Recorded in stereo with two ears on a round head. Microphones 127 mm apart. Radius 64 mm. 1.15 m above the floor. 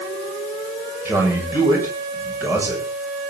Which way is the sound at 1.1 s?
15° right (ahead or behind).